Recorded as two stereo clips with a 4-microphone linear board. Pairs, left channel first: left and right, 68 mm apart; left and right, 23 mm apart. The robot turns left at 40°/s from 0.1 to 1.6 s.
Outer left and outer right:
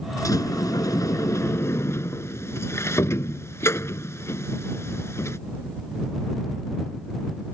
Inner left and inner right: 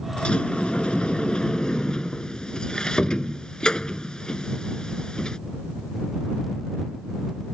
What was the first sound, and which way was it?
A sliding door, 105° left.